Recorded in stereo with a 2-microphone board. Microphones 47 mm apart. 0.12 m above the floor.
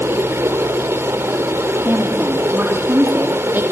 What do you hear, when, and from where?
0.0 s running water: 65° right (ahead or behind), 2.5 m
1.9 s a woman speaking: 45° right (ahead or behind), 4.5 m